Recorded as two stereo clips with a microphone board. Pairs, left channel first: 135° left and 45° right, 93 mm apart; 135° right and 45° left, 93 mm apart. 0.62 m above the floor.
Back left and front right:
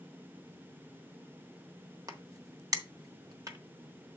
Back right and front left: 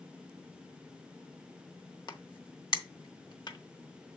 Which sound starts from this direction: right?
A crack, at 2.1 s.